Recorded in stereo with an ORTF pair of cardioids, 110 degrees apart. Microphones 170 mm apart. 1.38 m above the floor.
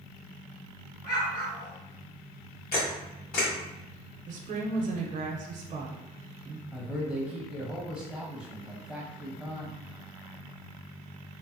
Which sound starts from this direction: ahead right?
A woman speaking, at 4.3 s.